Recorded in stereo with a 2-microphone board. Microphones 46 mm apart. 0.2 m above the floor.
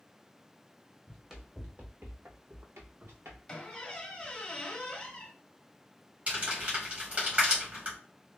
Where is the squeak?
15° left (ahead or behind), 1.1 m.